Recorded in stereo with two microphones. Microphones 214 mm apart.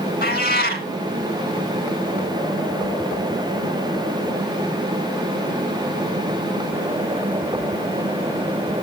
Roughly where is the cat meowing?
Left.